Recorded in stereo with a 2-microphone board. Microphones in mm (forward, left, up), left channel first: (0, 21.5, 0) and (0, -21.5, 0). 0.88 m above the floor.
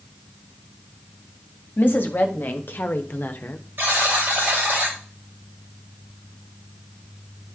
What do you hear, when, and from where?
1.8 s a woman speaking: 50° left (ahead or behind), 1.7 m; by 3.6 s 45° left (ahead or behind), 0.9 m
3.8 s a buzzer: 50° right (ahead or behind), 5.5 m